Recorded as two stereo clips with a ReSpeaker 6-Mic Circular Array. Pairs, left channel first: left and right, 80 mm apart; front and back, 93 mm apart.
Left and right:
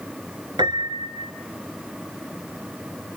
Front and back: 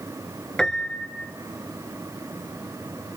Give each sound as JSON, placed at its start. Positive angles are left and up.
{"t": 0.6, "sound": "a piano", "azimuth_deg": -80, "distance_m": 2.0}